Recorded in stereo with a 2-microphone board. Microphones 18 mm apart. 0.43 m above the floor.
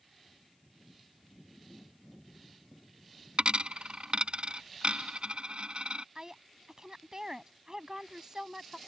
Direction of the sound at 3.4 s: 70° right (ahead or behind).